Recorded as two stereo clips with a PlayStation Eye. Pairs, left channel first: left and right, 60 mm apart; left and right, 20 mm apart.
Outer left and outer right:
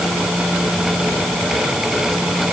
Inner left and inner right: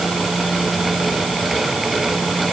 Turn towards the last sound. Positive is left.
No sound to turn to.